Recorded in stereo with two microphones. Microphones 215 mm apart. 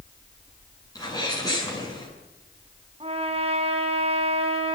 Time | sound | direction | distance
0.9 | a sneeze | 20° left (ahead or behind) | 7.5 m
3.0 | a trumpet | 30° right (ahead or behind) | 4.5 m